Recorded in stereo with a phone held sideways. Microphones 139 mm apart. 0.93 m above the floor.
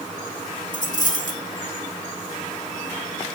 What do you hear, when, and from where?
0.7 s a dropped coin: 70° left (ahead or behind), 2.5 m